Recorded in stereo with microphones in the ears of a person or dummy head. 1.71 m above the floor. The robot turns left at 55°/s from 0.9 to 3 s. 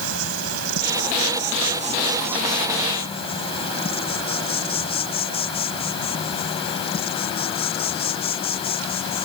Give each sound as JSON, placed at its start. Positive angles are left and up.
{"t": 0.0, "sound": "an insect", "azimuth_deg": -95}